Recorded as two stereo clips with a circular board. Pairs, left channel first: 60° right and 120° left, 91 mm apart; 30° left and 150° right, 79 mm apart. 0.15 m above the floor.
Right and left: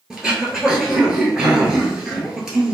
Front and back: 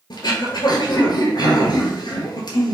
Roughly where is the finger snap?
No finger snap in this recording.